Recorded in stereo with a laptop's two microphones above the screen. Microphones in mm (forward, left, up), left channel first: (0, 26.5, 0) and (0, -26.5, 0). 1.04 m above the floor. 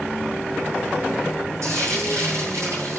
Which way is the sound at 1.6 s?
75° right (ahead or behind).